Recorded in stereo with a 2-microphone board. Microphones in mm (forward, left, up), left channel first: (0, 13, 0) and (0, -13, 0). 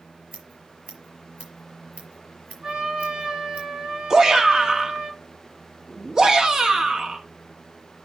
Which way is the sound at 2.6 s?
50° right (ahead or behind).